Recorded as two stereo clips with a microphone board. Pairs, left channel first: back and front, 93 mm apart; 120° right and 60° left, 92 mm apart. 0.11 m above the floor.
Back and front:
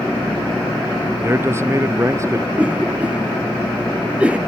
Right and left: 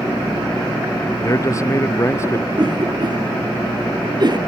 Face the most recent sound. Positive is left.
turn(degrees=75)